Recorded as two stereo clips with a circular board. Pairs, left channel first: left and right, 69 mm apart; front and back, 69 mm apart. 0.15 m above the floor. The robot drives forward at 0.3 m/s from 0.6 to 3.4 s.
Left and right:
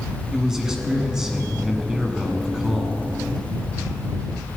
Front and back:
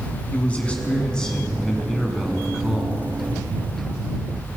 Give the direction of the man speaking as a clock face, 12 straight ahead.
1 o'clock.